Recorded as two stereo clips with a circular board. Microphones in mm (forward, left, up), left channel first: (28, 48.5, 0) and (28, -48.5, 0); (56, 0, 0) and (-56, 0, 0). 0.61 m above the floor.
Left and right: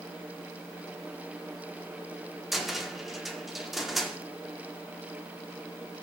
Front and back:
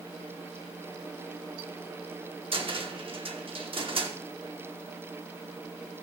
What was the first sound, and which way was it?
A cupboard door, straight behind.